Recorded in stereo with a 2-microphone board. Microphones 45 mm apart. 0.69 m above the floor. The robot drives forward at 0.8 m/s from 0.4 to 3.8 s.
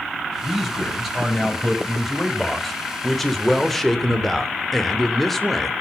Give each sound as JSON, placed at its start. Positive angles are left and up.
{"t": 0.4, "sound": "a man speaking", "side_deg": 0, "distance_m": 5.0}